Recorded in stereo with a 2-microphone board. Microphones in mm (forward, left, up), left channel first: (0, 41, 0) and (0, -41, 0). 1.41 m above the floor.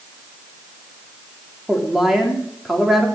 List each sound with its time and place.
1.7 s a woman speaking: 5° right (ahead or behind), 3.5 m